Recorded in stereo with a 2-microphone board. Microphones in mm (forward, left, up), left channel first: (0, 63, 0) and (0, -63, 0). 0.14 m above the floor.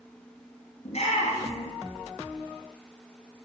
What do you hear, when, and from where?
0.8 s a shout: 55° left (ahead or behind), 2.5 m